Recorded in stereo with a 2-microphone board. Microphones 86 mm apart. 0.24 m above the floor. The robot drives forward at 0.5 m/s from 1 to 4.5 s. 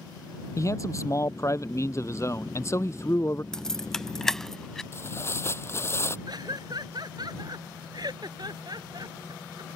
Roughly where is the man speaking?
Left.